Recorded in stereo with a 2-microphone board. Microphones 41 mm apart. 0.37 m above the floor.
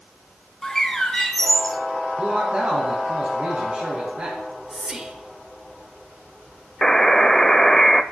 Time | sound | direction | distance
0.6 | a bird | 10° left (ahead or behind) | 1.3 m
2.2 | a man speaking | 35° right (ahead or behind) | 3 m
4.4 | whispering | 15° right (ahead or behind) | 0.9 m
6.8 | a buzzer | 10° left (ahead or behind) | 0.6 m